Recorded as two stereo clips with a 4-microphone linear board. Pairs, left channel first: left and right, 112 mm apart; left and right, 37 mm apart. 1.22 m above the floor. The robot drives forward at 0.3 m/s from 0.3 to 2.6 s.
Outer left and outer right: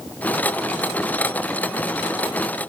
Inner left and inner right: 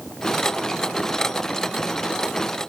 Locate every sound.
Only background noise.